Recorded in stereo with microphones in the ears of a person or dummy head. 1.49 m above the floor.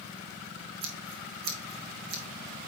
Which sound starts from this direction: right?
Scissors, at 0.8 s.